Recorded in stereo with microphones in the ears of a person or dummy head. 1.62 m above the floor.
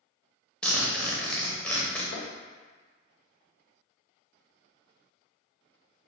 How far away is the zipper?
About 0.9 m.